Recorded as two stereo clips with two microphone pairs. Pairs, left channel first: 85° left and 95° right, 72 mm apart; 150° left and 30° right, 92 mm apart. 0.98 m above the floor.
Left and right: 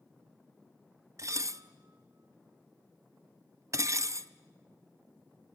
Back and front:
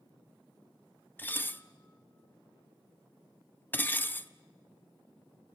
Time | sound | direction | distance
1.2 | dishes clattering | 140° right | 0.6 m